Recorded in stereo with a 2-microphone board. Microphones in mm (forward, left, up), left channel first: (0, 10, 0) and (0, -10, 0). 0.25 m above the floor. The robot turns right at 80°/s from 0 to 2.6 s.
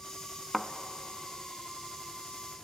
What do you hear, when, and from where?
0.5 s a thud: 15° left (ahead or behind), 0.8 m; by 0.7 s 5° left (ahead or behind), 0.8 m